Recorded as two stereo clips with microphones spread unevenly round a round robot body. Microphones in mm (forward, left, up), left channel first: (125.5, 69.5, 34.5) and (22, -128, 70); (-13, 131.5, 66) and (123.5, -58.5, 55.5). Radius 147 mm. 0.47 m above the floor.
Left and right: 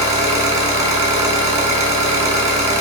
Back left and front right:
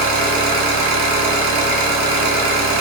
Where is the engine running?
55° right, 1.1 m.